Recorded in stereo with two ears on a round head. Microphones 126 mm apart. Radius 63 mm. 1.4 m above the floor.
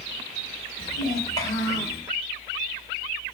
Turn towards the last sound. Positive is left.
turn(degrees=20)  # may be behind; listen again after turning